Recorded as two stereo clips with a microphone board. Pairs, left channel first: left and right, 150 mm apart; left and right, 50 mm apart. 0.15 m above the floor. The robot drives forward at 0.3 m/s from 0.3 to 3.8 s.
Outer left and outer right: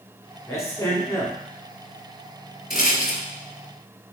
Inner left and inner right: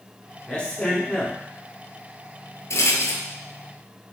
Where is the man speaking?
20° left (ahead or behind), 1.4 m.